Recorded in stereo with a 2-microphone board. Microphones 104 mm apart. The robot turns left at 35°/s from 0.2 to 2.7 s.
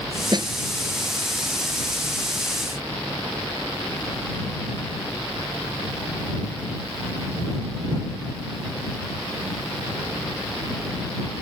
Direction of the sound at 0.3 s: 45° right (ahead or behind).